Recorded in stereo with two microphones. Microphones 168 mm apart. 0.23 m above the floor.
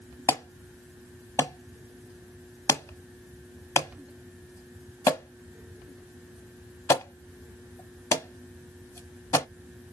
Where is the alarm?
20° left (ahead or behind), 0.9 m.